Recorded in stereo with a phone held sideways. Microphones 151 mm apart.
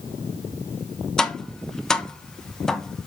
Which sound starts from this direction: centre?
Tapping, at 1.2 s.